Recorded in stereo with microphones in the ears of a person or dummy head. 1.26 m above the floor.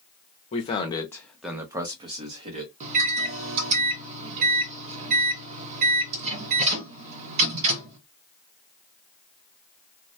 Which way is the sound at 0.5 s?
40° left (ahead or behind).